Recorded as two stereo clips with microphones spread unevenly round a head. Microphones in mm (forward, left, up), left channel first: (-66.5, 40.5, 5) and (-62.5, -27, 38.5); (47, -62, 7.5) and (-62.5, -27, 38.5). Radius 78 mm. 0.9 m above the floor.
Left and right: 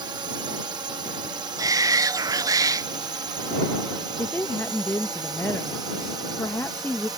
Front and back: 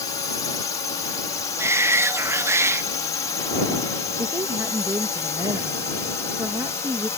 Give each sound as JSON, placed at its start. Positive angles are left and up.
{"t": 0.0, "sound": "a drone", "azimuth_deg": -50}
{"t": 1.6, "sound": "a shout", "azimuth_deg": -125}
{"t": 4.2, "sound": "a woman speaking", "azimuth_deg": 90}